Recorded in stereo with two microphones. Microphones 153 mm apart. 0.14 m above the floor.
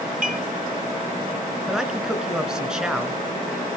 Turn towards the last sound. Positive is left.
turn(degrees=-5)  # may be behind; listen again after turning